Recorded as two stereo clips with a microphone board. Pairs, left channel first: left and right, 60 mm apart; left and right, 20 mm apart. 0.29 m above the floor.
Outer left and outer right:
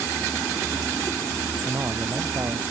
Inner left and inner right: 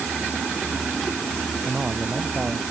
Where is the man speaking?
50° right (ahead or behind).